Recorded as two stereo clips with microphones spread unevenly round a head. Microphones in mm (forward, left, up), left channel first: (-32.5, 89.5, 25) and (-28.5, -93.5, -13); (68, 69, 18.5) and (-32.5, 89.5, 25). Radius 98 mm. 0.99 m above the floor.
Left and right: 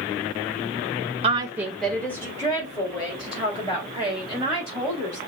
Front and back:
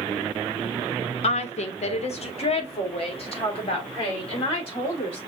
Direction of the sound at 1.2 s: 35° right.